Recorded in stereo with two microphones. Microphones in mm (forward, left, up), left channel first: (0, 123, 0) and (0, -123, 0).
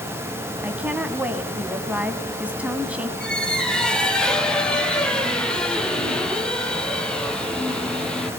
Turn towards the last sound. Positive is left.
turn(degrees=5)  # may be behind; listen again after turning